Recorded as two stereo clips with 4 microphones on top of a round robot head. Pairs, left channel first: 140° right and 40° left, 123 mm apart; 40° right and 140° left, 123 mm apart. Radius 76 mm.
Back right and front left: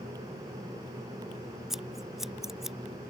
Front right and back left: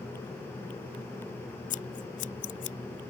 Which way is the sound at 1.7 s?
50° right.